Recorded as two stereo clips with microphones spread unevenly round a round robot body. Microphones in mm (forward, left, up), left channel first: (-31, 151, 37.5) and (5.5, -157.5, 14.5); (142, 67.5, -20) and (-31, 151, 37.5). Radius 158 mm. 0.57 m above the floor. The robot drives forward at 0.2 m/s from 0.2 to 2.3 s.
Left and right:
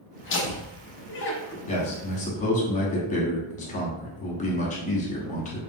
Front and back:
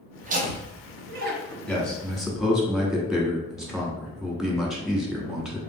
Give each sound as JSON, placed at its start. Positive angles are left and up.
{"t": 0.2, "sound": "laughter", "azimuth_deg": 105, "distance_m": 0.8}
{"t": 1.7, "sound": "a man speaking", "azimuth_deg": 30, "distance_m": 0.9}